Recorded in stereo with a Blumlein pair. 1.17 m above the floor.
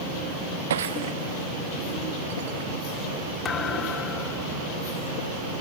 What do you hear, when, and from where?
0.7 s breaking glass: 60° right
3.5 s a thud: 20° left